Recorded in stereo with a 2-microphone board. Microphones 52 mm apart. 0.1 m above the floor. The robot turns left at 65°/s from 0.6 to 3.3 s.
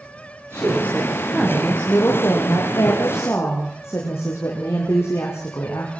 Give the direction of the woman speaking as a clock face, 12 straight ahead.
4 o'clock.